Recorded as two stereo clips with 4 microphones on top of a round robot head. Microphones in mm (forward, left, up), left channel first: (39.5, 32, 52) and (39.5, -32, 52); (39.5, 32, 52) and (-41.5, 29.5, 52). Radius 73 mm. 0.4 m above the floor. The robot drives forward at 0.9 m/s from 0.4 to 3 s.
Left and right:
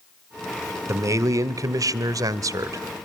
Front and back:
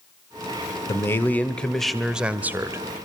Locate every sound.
0.9 s a man speaking: 55° right, 1.8 m; by 2.8 s 120° right, 1.7 m